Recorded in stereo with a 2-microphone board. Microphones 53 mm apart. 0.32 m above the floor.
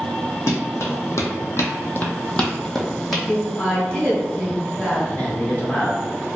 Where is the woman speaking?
25° left (ahead or behind), 1.6 m.